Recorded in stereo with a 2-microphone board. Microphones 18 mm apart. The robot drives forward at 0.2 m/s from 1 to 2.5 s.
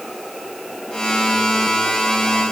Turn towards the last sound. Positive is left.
No sound to turn to.